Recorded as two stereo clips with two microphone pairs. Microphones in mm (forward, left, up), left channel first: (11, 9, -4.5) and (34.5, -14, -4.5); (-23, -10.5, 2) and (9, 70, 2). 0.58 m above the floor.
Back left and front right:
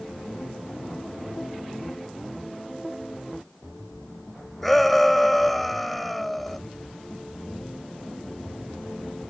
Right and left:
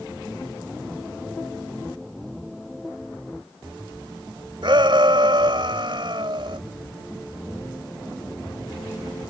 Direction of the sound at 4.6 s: 50° left.